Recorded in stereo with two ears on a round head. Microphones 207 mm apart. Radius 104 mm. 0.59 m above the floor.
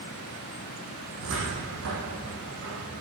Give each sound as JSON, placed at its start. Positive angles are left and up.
{"t": 1.2, "sound": "a cupboard door", "side_deg": -60, "distance_m": 9.5}